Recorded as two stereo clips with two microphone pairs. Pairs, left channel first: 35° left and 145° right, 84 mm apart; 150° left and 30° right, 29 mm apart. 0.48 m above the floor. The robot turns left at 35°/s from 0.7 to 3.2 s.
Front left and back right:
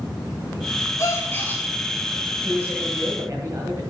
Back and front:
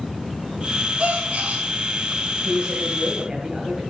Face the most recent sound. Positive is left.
turn(degrees=-100)